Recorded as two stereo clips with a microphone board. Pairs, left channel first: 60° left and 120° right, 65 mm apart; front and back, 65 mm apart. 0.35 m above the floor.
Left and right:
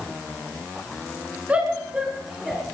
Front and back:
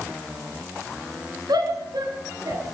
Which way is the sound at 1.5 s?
170° left.